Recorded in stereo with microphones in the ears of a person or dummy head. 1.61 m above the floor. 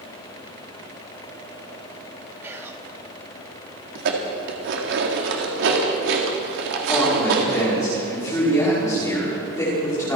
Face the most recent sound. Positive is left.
turn(degrees=20)  # may be behind; listen again after turning